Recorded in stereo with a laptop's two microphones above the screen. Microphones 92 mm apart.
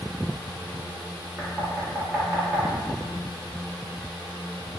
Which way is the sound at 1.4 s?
20° right (ahead or behind).